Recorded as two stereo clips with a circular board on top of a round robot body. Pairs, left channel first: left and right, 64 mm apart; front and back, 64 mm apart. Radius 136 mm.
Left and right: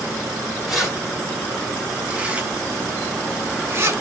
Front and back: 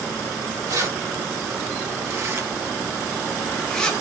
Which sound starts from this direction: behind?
Keys jangling, at 0.7 s.